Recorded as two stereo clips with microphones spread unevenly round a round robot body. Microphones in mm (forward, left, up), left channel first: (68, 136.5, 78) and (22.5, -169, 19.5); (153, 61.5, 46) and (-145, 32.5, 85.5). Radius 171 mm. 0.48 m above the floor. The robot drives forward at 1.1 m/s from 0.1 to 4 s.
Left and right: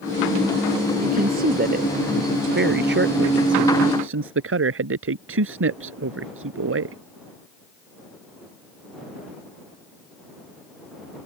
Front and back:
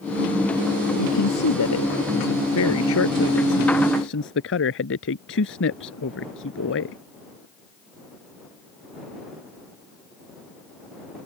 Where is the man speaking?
35° right; by 7.0 s 50° right.